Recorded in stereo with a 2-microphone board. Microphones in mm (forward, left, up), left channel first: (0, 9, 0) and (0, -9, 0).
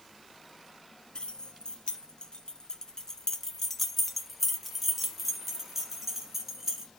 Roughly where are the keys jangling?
Left.